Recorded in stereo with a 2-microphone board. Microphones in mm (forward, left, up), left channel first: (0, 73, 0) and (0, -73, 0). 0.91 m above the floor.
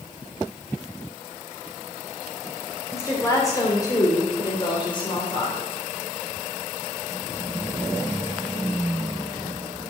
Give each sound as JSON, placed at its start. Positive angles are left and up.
{"t": 2.9, "sound": "a woman speaking", "side_deg": 20, "distance_m": 3.0}